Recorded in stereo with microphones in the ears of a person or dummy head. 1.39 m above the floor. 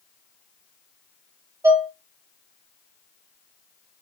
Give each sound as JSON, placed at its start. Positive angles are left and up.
{"t": 1.6, "sound": "dishes clattering", "side_deg": -10, "distance_m": 1.1}